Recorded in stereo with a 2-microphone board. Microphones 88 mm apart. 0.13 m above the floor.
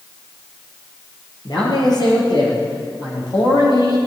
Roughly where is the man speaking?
Left.